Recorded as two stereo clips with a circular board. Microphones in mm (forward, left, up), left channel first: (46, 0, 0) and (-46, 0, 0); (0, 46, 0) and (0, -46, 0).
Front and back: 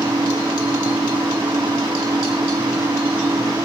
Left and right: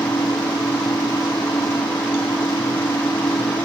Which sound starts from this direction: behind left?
An engine running, at 0.0 s.